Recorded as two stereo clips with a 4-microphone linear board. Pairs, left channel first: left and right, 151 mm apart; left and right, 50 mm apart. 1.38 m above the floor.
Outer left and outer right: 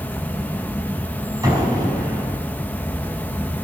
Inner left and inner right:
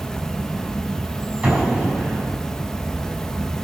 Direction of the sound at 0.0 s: 10° left (ahead or behind).